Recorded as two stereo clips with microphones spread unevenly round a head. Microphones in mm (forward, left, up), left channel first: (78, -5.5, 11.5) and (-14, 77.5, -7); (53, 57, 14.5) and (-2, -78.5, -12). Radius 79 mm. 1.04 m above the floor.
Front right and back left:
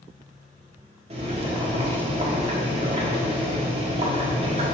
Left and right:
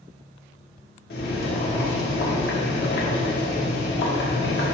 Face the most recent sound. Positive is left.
turn(degrees=95)